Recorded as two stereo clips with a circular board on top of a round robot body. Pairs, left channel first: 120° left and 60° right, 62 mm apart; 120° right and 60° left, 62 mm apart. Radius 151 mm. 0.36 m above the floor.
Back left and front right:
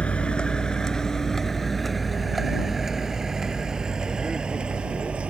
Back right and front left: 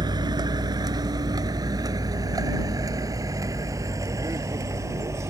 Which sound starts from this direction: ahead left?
A vehicle, at 0.0 s.